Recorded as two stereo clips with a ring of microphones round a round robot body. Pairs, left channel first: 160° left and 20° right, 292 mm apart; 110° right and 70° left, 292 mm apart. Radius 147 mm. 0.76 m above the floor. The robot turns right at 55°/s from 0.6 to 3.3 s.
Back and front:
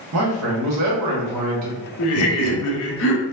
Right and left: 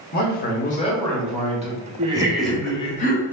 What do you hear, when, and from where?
0.1 s a man speaking: 55° right, 1.2 m; by 1.9 s 15° left, 1.2 m
2.0 s laughter: 135° left, 0.9 m; by 3.2 s 160° right, 0.9 m